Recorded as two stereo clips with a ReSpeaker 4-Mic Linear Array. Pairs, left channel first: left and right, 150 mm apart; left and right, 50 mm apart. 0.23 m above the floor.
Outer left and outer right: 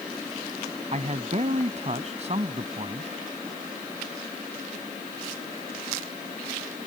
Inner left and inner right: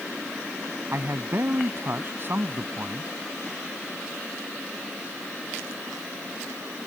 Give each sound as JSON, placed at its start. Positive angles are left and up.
{"t": 0.9, "sound": "a man speaking", "side_deg": -45}